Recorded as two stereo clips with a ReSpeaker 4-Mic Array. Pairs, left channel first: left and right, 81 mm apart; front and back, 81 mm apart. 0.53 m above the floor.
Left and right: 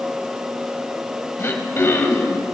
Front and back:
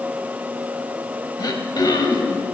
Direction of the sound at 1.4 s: 30° left.